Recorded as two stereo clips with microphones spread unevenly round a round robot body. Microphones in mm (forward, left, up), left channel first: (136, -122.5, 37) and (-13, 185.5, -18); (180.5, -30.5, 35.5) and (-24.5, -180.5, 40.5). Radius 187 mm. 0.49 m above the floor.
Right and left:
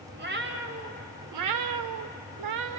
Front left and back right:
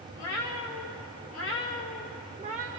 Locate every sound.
0.2 s a cat meowing: 55° left, 1.1 m; by 2.8 s 160° left, 0.6 m